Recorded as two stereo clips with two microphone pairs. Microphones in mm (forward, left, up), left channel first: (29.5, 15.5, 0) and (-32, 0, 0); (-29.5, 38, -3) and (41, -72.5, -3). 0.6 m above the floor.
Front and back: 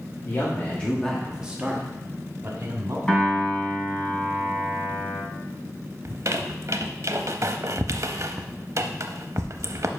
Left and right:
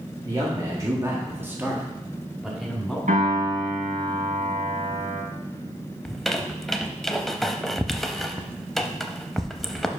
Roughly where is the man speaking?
Ahead.